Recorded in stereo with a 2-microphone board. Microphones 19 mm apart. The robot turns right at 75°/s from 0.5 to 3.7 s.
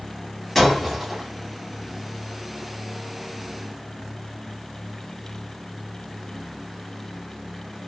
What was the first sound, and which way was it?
Breaking glass, 160° left.